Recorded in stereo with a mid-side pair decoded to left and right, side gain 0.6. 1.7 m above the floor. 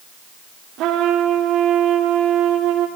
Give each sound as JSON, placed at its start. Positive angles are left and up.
{"t": 0.8, "sound": "a trumpet", "azimuth_deg": -65, "distance_m": 3.0}